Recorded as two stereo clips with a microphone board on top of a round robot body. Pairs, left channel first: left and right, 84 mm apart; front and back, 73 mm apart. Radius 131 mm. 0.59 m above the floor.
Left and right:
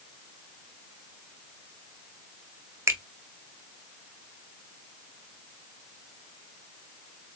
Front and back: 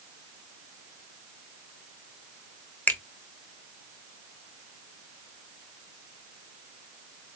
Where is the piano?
I don't hear a piano.